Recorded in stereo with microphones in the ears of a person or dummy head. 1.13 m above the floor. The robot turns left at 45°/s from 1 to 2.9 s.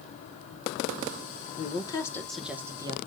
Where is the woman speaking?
35° left, 0.9 m; by 3.0 s 25° right, 0.9 m.